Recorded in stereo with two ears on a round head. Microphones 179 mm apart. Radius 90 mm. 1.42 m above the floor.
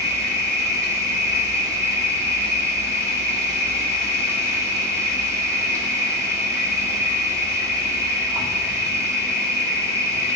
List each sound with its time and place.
0.0 s an insect: 15° right (ahead or behind), 1.8 m